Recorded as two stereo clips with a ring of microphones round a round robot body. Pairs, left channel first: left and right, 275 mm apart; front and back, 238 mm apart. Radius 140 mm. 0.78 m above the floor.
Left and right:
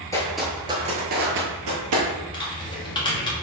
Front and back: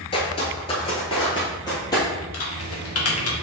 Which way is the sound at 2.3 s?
15° left.